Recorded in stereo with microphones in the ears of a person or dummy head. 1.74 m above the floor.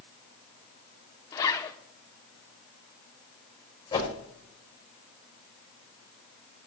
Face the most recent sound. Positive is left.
turn(degrees=25)  # may be behind; listen again after turning